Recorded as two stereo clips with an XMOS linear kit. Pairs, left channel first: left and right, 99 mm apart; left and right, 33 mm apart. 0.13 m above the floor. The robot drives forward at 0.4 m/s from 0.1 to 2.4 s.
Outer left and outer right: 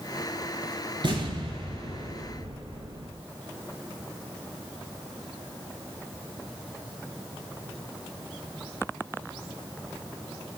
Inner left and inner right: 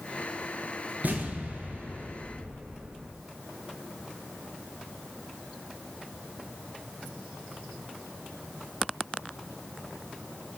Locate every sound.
1.0 s an explosion: 50° right (ahead or behind), 2 m; by 3.1 s 55° right (ahead or behind), 2 m